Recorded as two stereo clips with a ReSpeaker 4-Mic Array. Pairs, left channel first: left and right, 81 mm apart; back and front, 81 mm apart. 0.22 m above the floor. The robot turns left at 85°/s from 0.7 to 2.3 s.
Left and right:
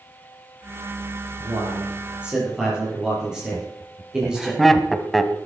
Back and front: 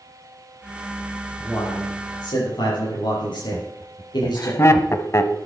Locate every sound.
1.4 s a man speaking: 95° right, 8 m; by 4.5 s 170° right, 8 m
3.5 s laughter: 175° left, 1.3 m